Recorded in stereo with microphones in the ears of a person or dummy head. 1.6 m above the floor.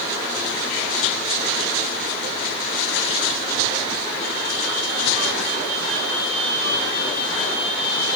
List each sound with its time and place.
Only background noise.